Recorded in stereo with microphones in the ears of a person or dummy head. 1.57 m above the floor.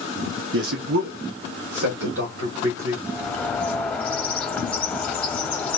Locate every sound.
0.5 s a man speaking: 70° right (ahead or behind), 0.6 m; by 3.0 s 75° right (ahead or behind), 1.9 m
3.1 s a bird: 10° left (ahead or behind), 0.8 m